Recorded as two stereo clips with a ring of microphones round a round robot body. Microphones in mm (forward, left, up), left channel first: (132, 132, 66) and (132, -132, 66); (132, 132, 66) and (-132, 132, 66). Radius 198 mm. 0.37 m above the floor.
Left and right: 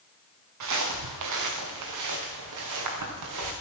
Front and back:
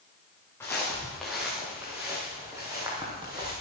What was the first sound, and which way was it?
Footsteps, 85° right.